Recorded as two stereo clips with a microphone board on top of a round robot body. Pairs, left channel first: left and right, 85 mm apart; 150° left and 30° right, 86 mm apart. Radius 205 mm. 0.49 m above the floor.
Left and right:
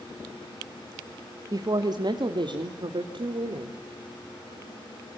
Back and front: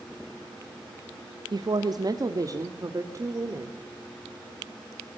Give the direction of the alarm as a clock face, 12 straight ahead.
No alarm in this recording.